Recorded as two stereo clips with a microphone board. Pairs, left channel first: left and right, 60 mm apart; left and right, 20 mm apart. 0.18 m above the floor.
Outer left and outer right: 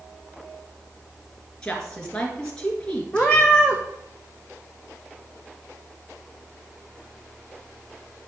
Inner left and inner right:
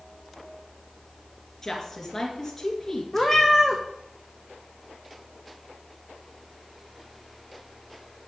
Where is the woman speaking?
15° left (ahead or behind), 2 m.